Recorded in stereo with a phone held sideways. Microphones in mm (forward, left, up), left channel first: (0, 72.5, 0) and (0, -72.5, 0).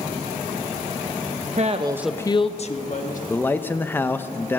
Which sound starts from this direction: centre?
A man speaking, at 3.3 s.